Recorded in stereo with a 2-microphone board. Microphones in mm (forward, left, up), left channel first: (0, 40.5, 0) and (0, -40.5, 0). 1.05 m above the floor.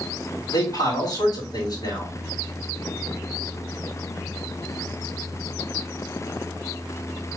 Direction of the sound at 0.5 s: 60° left (ahead or behind).